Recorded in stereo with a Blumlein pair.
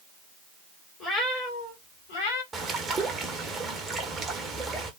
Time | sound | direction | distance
1.0 | a cat meowing | 15° left | 0.9 m
2.5 | a bird | 15° right | 0.7 m